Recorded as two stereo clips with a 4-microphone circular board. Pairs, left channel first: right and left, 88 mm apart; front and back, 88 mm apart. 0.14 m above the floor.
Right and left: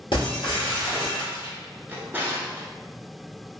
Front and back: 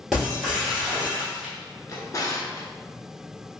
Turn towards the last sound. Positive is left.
turn(degrees=30)